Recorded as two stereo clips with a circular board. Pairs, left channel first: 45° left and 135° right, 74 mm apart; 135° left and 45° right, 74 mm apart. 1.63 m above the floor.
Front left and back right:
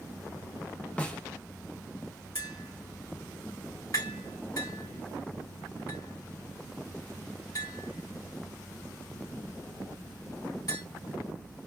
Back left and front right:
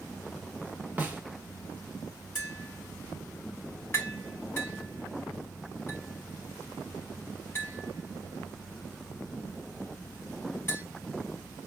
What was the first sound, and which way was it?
A snare drum, 5° right.